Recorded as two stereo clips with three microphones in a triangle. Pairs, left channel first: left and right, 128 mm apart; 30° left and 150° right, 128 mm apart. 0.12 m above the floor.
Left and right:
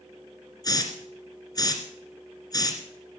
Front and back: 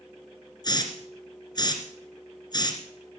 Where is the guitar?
I don't hear a guitar.